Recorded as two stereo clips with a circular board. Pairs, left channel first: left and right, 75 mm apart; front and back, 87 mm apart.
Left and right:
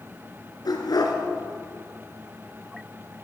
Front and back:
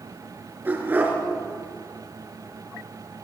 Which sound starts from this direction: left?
A dog barking, at 0.7 s.